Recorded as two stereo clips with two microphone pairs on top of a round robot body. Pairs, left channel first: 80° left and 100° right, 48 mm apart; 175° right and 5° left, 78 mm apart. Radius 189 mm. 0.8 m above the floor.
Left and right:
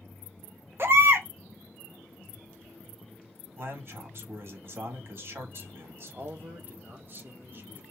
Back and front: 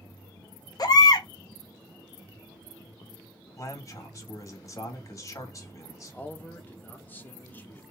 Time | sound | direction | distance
0.8 | a baby crying | 140° right | 0.8 m
3.6 | a man speaking | 135° right | 1.8 m
6.1 | a man speaking | 125° right | 1.3 m